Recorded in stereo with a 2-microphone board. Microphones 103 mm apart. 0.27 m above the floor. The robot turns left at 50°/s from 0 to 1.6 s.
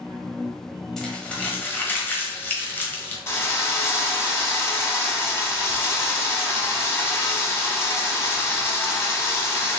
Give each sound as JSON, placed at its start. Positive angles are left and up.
{"t": 1.0, "sound": "crumpling", "side_deg": 5, "distance_m": 1.0}
{"t": 3.3, "sound": "a drill", "side_deg": 25, "distance_m": 1.0}